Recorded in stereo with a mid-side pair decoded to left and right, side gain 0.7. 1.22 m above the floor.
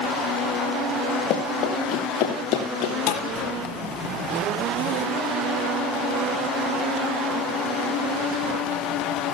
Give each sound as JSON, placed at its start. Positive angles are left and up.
{"t": 1.3, "sound": "running footsteps", "azimuth_deg": 50, "distance_m": 5.0}
{"t": 3.1, "sound": "a thud", "azimuth_deg": 65, "distance_m": 5.5}